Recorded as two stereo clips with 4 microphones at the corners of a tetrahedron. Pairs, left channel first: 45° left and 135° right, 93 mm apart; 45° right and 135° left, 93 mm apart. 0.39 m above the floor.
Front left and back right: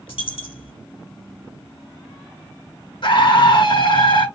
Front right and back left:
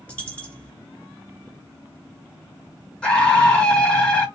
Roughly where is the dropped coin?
Ahead left.